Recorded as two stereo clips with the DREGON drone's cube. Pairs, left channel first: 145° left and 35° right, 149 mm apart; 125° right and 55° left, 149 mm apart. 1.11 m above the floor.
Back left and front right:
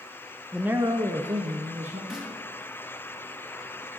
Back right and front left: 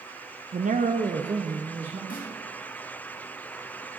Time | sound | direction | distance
0.5 | a man speaking | 55° left | 0.6 m
2.1 | a snare drum | 120° right | 2 m